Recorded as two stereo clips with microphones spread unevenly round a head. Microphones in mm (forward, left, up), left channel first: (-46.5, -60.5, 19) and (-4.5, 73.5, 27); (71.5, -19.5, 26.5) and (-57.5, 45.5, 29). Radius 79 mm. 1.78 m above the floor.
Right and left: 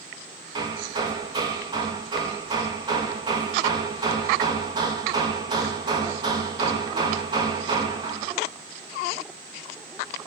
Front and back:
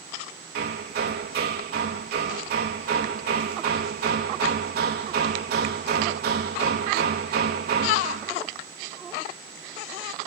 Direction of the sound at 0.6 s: 135° left.